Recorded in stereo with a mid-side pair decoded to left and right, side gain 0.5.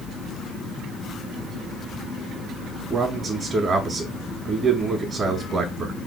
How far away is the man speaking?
About 0.9 m.